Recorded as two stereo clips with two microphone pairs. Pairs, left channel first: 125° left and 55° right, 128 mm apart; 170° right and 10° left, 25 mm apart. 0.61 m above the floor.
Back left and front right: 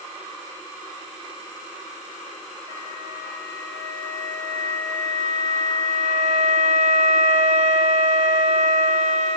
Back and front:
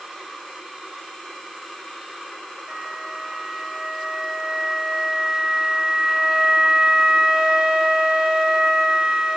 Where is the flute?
45° right, 1.9 m.